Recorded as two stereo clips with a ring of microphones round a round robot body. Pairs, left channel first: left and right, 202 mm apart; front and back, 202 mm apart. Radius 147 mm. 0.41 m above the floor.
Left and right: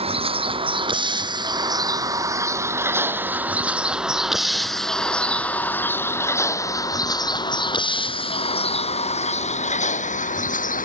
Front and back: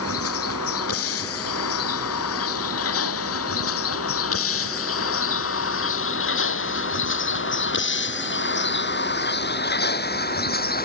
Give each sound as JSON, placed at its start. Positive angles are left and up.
{"t": 0.0, "sound": "a vehicle", "azimuth_deg": -30}